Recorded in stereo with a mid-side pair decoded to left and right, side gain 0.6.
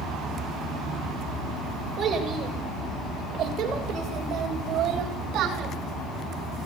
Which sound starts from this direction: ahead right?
A child speaking, at 2.0 s.